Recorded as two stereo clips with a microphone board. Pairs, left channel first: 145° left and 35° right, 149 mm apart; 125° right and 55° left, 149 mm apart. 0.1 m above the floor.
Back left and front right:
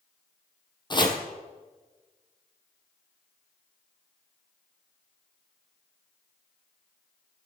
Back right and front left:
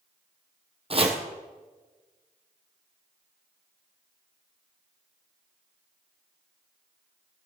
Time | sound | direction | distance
0.9 | chopping | 95° left | 1.8 m